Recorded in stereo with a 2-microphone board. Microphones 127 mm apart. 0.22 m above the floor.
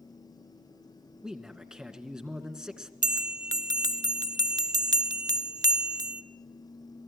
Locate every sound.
1.2 s a man speaking: 5° right (ahead or behind), 2 m
3.0 s a bell: 30° right (ahead or behind), 0.8 m